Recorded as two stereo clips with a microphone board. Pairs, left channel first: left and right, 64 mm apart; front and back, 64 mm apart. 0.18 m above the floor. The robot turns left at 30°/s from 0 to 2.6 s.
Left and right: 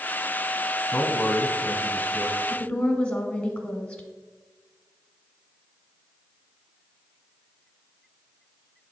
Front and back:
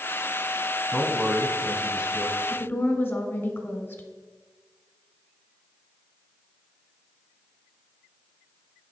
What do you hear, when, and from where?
0.9 s a man speaking: 120° left, 1.1 m; by 2.4 s 75° left, 1.1 m
2.5 s a woman speaking: 30° left, 1.2 m; by 4.0 s 25° left, 1.2 m